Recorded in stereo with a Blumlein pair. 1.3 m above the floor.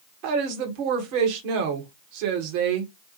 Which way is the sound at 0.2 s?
45° right.